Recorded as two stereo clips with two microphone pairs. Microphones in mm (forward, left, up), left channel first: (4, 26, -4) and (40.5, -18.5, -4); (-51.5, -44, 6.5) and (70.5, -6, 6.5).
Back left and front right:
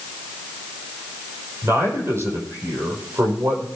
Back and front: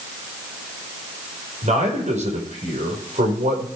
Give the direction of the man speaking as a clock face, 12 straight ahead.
12 o'clock.